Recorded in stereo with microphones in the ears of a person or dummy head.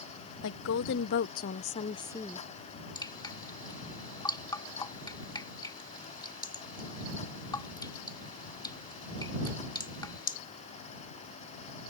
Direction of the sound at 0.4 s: 70° left (ahead or behind).